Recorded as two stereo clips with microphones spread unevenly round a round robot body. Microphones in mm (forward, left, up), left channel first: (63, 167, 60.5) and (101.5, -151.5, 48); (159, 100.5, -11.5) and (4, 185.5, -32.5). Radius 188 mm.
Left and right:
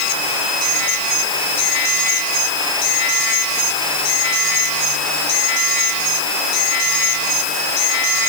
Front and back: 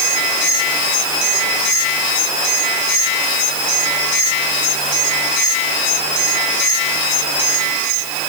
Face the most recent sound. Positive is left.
No sound to turn to.